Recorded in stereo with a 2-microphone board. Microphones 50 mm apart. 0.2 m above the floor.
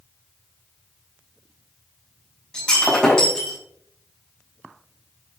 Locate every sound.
2.5 s breaking glass: 15° left (ahead or behind), 7 m